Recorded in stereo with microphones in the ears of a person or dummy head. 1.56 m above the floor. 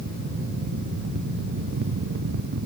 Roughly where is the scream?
No scream in this recording.